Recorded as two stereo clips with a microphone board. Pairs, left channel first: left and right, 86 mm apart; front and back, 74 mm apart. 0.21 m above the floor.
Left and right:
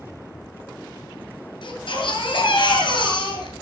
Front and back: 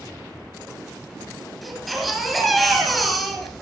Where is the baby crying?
90° left, 2 m.